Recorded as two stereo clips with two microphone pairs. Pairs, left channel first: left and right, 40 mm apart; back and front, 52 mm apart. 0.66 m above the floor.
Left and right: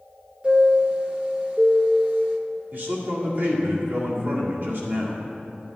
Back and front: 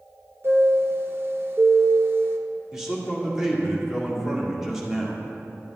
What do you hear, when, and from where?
0.4 s a chime: 35° right, 0.8 m
2.7 s a man speaking: 80° right, 1.8 m